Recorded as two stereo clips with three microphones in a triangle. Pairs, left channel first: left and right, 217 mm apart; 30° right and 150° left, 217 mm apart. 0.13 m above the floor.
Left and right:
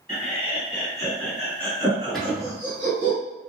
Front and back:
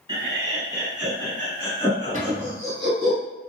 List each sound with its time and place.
0.1 s laughter: 95° left, 1.6 m; by 3.1 s 70° right, 1.9 m
2.1 s a cupboard door: straight behind, 0.7 m